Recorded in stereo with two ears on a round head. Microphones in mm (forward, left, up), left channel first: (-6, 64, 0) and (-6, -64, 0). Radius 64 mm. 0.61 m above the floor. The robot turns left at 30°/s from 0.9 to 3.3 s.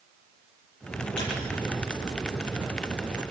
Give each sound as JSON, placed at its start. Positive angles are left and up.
{"t": 1.2, "sound": "a squeak", "side_deg": 85, "distance_m": 7.5}